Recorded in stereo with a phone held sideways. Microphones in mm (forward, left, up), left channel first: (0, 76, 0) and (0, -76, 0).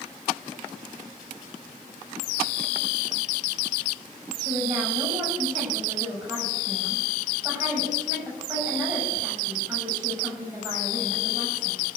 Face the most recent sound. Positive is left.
turn(degrees=-25)  # may be behind; listen again after turning